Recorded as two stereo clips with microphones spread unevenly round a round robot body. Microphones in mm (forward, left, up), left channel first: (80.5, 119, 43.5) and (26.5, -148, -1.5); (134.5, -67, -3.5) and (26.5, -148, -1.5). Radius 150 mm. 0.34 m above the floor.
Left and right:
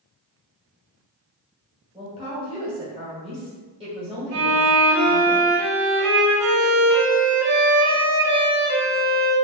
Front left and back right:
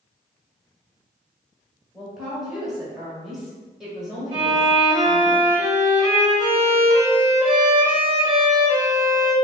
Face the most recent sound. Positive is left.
turn(degrees=-105)